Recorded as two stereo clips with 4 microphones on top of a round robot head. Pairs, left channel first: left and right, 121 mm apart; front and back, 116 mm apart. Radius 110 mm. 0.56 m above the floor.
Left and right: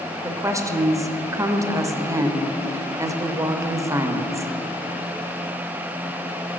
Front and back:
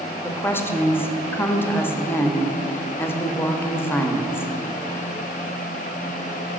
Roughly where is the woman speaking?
Ahead right.